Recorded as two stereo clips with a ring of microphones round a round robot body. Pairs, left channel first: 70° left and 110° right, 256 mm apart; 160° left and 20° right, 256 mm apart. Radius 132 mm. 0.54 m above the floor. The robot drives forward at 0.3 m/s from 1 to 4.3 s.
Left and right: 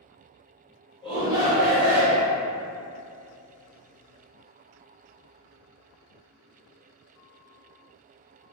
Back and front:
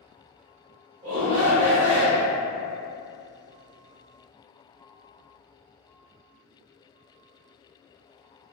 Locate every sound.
1.0 s a shout: 25° right, 1.2 m; by 2.3 s 60° right, 1.0 m